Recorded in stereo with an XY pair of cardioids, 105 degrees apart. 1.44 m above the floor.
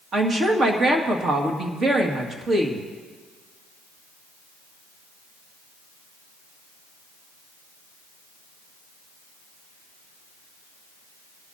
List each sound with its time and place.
0.1 s a woman speaking: 45° right, 2.5 m